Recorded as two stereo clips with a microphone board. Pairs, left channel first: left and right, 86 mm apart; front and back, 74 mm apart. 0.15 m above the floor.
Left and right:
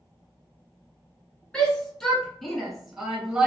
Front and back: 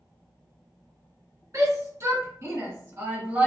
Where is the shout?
165° left, 1.8 m; by 3.5 s 150° right, 1.4 m.